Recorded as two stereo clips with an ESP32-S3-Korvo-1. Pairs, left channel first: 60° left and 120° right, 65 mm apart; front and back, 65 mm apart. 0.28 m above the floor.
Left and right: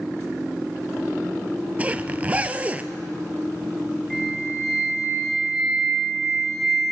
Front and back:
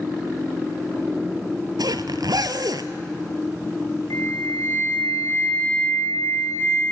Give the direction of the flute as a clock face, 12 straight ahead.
1 o'clock.